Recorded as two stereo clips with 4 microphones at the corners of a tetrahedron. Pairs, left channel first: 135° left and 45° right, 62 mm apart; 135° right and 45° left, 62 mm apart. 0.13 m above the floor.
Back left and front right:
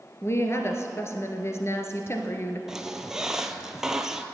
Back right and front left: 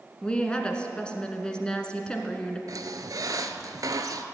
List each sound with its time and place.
0.2 s a woman speaking: 155° left, 1.5 m
2.7 s a squeak: 35° left, 0.8 m